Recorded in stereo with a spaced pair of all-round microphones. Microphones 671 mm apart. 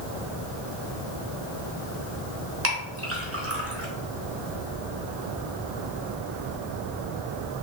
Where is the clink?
20° right (ahead or behind), 0.8 m.